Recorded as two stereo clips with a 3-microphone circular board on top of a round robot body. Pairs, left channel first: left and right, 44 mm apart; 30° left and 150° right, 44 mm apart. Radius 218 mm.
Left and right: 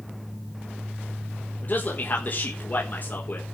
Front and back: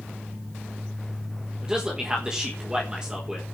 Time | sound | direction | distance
1.6 | a man speaking | 135° left | 4.5 m